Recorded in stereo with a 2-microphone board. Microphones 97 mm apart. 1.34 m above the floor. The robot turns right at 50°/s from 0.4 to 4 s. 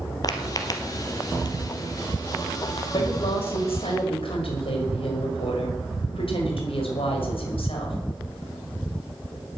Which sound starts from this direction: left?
Footsteps, at 0.2 s.